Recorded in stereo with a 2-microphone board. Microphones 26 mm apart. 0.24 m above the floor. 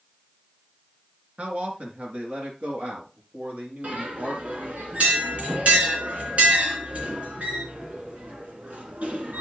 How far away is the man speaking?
About 3.5 m.